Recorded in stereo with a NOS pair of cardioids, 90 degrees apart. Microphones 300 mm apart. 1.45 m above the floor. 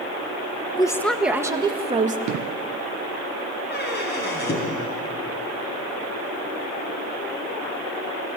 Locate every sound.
0.8 s a woman speaking: 15° left, 2 m; by 2.2 s 25° right, 3 m
2.3 s an explosion: 70° right, 0.9 m
3.7 s a squeak: 35° left, 6.5 m